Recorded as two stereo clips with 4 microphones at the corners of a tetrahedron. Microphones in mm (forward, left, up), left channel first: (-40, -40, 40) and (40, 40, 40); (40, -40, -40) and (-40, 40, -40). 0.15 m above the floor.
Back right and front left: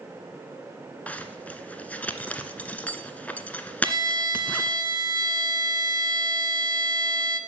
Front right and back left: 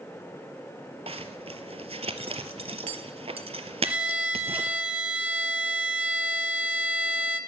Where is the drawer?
No drawer in this recording.